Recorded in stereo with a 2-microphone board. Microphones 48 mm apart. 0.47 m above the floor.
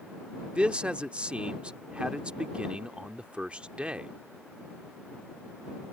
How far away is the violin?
No violin in this recording.